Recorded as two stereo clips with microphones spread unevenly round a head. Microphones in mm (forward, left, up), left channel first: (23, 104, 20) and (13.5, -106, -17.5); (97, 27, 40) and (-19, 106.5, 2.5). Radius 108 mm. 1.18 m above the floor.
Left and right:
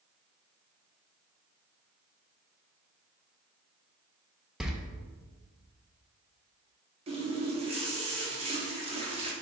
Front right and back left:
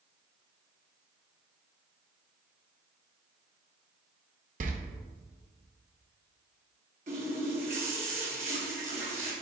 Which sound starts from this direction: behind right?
A running tap, at 7.1 s.